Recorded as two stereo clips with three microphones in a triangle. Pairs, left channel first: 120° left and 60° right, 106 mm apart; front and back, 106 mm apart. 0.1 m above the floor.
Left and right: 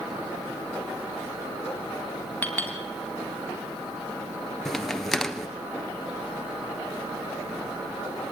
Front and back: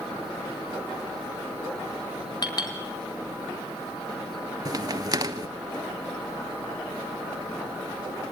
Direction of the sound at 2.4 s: 45° left.